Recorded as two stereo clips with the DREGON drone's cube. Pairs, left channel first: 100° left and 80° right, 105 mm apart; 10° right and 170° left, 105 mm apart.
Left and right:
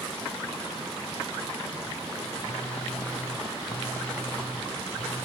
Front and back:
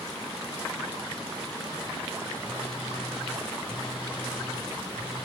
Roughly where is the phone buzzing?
Behind.